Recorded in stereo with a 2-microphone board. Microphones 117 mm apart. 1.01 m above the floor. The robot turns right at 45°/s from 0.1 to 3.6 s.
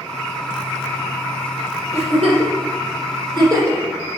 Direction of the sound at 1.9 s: 65° right (ahead or behind).